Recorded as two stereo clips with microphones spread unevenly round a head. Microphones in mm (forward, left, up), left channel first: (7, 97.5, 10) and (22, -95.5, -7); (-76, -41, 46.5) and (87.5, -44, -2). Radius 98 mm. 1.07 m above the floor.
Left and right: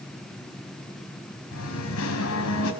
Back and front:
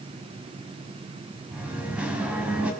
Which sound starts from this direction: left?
Singing, at 1.5 s.